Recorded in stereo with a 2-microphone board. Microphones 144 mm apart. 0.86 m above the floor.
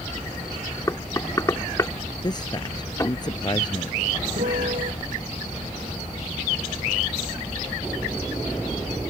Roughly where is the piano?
Right.